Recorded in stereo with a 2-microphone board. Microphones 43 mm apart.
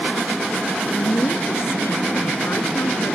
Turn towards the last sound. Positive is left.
turn(degrees=75)  # may be behind; listen again after turning